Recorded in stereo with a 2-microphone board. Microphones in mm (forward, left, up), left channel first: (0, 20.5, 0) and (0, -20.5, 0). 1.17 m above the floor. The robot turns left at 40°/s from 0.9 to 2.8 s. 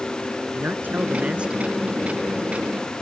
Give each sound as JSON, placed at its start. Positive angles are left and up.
{"t": 0.5, "sound": "a man speaking", "azimuth_deg": -130}